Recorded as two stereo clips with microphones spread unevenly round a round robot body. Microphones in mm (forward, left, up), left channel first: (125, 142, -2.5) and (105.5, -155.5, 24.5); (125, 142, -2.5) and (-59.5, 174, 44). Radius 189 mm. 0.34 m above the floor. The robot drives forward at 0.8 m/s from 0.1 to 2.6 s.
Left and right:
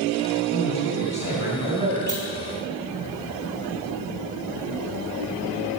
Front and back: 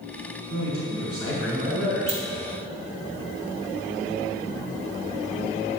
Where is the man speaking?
165° left, 4.5 m; by 2.2 s 170° left, 5.5 m.